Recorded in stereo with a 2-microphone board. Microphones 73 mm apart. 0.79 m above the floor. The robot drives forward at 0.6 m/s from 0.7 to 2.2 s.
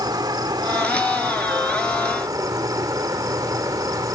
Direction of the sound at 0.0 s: 70° right (ahead or behind).